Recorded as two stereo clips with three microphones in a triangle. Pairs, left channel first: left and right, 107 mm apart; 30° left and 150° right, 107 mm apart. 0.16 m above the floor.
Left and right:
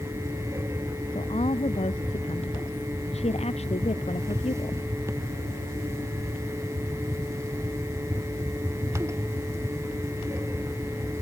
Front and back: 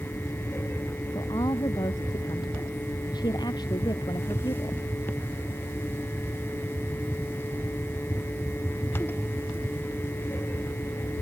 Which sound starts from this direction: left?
A woman speaking, at 1.1 s.